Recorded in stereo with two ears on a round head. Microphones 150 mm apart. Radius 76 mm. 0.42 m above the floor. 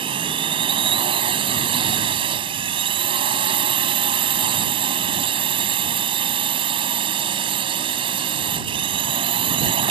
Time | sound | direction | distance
0.0 | a drone | 30° right (ahead or behind) | ?